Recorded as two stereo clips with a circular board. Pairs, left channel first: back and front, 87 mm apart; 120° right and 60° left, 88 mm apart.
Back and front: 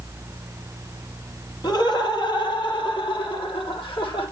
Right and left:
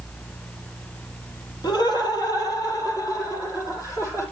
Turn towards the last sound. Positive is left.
turn(degrees=-175)